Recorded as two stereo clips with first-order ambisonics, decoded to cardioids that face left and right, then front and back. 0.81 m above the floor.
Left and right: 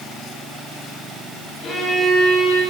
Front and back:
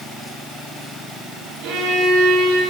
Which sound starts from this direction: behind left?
A violin, at 1.6 s.